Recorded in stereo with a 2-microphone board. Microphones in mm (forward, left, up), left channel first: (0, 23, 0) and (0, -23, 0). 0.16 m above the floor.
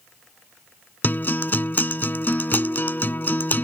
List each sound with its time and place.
1.0 s a guitar: 40° left (ahead or behind)